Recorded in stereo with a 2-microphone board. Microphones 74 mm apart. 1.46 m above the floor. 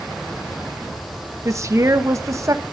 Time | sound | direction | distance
1.4 | a woman speaking | 45° right (ahead or behind) | 1.7 m